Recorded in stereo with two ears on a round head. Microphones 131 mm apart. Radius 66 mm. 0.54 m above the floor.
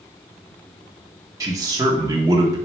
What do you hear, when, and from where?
1.4 s a man speaking: 25° right (ahead or behind), 0.8 m